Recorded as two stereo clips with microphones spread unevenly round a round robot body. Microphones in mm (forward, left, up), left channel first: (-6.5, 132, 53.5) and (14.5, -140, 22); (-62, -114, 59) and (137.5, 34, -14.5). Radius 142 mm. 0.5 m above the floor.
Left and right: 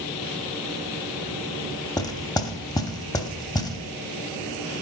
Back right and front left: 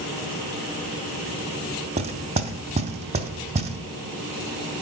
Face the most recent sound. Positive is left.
turn(degrees=15)